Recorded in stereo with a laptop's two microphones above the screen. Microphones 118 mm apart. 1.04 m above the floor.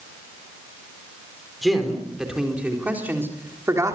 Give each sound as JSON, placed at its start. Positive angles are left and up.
{"t": 1.6, "sound": "a man speaking", "side_deg": 0, "distance_m": 4.0}